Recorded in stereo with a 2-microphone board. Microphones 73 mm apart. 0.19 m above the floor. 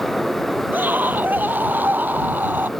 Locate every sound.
0.7 s a scream: 25° right (ahead or behind)